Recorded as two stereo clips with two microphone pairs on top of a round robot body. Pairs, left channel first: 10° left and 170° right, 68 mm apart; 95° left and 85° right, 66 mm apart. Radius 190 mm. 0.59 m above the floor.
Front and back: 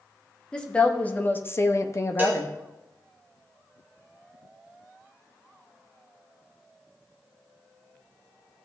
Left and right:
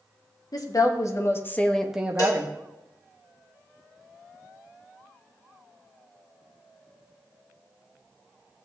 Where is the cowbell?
130° left, 2.5 m.